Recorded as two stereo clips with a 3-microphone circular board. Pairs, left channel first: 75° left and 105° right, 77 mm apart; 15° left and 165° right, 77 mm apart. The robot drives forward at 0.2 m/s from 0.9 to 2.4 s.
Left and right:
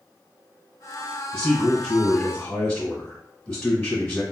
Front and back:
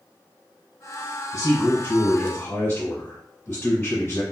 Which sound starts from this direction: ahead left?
A man speaking, at 1.3 s.